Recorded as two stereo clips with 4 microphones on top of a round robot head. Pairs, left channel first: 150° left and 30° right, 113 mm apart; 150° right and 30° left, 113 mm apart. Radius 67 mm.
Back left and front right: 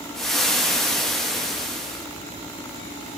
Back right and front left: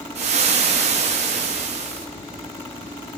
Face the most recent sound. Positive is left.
turn(degrees=60)